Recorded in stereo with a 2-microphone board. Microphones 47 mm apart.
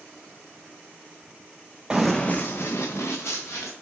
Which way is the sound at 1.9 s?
10° right (ahead or behind).